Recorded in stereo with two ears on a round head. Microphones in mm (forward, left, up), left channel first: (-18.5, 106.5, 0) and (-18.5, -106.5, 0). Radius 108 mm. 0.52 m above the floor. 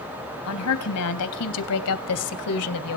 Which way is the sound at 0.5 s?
70° left (ahead or behind).